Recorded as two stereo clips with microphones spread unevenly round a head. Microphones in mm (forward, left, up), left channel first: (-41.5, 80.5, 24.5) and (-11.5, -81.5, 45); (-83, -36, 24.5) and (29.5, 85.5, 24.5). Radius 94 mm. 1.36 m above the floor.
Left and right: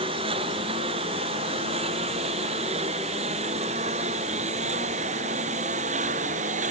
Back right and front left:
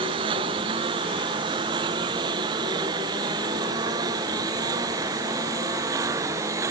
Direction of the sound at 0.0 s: 20° right.